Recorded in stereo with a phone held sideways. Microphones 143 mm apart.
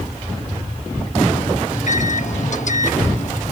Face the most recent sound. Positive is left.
turn(degrees=60)  # may be behind; listen again after turning